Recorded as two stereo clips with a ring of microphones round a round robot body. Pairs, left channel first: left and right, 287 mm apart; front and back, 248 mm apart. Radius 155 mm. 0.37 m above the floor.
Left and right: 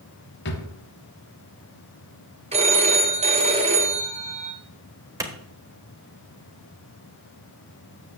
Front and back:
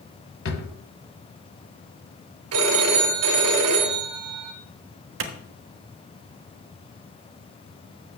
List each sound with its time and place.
0.5 s a drawer: 40° left, 1.3 m
2.5 s a phone ringing: 160° right, 2.0 m
5.2 s a clap: 165° right, 1.1 m